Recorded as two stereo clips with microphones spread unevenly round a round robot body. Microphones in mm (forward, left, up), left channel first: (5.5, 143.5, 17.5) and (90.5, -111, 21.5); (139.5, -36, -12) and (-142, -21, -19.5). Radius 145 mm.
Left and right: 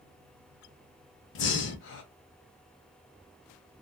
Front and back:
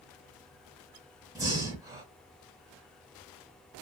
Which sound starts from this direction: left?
Breathing, at 1.4 s.